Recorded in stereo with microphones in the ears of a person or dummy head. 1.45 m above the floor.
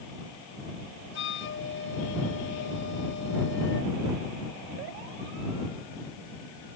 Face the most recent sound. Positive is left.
turn(degrees=65)  # may be behind; listen again after turning